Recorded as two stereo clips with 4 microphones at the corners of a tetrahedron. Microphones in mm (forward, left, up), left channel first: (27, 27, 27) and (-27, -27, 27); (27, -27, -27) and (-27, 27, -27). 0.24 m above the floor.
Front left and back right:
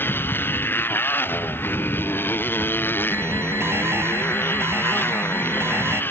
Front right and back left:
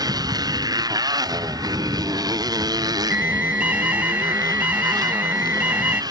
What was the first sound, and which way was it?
A motorcycle, 105° left.